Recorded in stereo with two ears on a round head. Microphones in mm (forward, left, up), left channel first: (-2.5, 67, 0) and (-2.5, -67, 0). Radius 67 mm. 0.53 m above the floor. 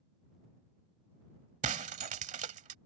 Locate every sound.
1.6 s breaking glass: 45° right (ahead or behind)